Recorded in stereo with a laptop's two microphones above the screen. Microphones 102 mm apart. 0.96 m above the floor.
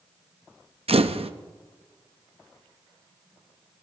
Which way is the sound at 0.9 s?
80° right.